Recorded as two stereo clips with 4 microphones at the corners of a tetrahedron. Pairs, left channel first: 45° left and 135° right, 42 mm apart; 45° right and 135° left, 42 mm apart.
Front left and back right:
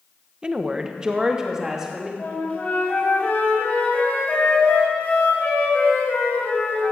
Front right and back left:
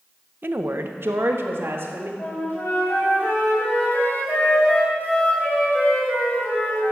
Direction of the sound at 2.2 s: 10° right.